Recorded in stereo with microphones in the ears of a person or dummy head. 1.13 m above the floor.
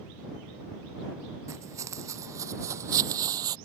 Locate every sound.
1.5 s footsteps: 15° right (ahead or behind); by 3.6 s 20° right (ahead or behind)